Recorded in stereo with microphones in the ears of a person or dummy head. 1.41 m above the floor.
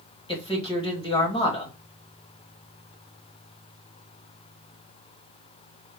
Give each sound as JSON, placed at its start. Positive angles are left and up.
{"t": 0.3, "sound": "a man speaking", "side_deg": 20, "distance_m": 1.3}